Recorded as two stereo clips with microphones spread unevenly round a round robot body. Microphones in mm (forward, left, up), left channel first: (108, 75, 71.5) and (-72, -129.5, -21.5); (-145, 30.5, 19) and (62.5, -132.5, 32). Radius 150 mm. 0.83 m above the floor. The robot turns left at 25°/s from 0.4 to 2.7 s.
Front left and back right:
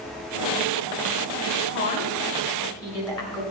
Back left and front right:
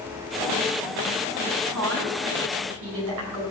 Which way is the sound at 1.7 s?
5° right.